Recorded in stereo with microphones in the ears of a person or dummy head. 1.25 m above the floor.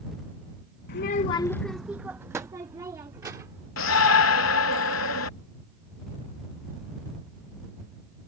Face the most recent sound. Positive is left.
turn(degrees=75)  # may be behind; listen again after turning